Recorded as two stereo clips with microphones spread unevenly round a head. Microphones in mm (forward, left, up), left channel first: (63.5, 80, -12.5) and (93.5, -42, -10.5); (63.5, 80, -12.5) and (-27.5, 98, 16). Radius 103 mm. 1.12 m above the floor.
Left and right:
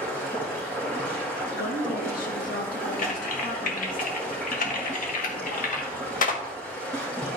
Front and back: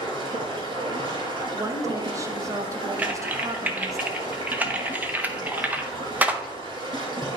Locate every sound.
0.0 s running water: 175° right, 2 m
1.5 s a woman speaking: 110° left, 1.3 m
3.0 s typing on a keyboard: 95° left, 1.1 m